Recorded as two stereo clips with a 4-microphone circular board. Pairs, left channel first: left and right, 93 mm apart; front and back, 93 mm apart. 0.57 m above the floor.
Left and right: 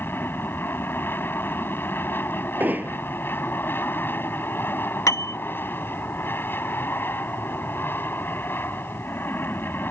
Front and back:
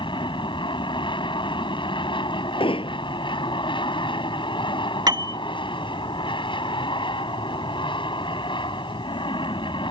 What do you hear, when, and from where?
0.0 s an aircraft: 25° left
2.6 s hammering: 20° right
5.1 s a piano: 140° left